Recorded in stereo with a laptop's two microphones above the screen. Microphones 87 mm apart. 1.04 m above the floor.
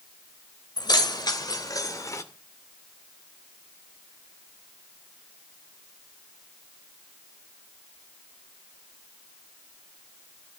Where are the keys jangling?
55° left (ahead or behind), 3 m; by 2.2 s 35° left (ahead or behind), 2 m.